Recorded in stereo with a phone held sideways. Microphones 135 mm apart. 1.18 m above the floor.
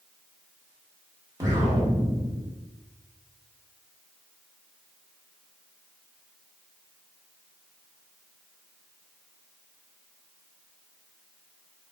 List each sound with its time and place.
1.4 s an explosion: 25° right (ahead or behind), 1.2 m